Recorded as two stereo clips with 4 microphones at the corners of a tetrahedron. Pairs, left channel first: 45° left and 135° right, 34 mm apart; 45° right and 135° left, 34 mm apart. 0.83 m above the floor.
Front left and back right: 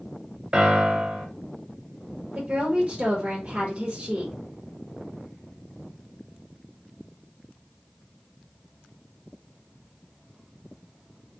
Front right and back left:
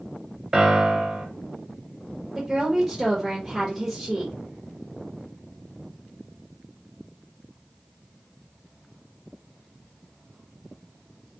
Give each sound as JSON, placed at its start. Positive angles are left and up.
{"t": 0.5, "sound": "a piano", "azimuth_deg": -165, "distance_m": 0.6}
{"t": 2.4, "sound": "a woman speaking", "azimuth_deg": -155, "distance_m": 1.0}